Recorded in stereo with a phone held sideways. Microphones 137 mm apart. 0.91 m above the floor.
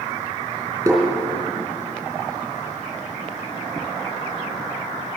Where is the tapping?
20° right (ahead or behind), 3.5 m.